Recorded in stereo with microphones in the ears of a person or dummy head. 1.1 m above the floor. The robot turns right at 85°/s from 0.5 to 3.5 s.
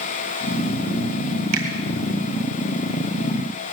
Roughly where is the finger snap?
Right.